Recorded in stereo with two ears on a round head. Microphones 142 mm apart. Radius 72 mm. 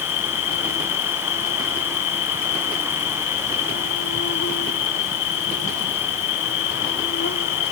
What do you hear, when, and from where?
0.0 s an insect: 70° left (ahead or behind)